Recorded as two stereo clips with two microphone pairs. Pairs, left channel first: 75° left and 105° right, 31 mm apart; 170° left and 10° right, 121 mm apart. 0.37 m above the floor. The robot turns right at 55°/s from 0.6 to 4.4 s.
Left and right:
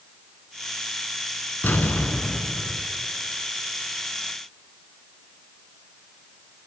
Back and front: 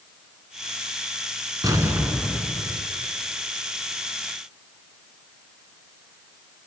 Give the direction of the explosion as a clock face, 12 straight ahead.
10 o'clock.